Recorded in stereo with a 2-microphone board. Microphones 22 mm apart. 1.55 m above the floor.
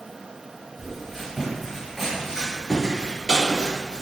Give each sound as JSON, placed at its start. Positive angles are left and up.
{"t": 0.8, "sound": "footsteps", "side_deg": -5, "distance_m": 1.7}